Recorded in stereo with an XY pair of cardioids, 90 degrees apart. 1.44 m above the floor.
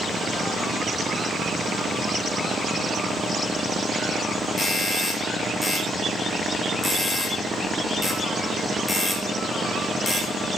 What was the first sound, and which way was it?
A doorbell, 30° left.